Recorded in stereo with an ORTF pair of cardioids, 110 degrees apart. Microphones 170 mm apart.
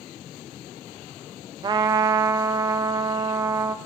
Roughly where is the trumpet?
Ahead right.